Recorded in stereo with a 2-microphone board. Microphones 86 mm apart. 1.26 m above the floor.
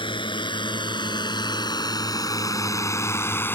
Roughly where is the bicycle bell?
I don't hear a bicycle bell.